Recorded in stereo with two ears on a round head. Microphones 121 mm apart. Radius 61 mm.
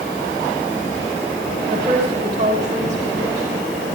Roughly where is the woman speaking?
Right.